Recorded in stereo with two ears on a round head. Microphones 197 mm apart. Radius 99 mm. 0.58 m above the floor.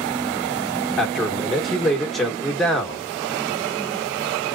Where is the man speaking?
Centre (ahead or behind), 1.0 m.